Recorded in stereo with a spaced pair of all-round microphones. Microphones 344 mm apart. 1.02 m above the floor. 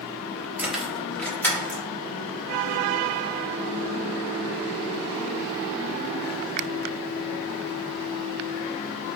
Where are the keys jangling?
5° right (ahead or behind), 0.7 m; by 1.8 s 5° left (ahead or behind), 1.7 m.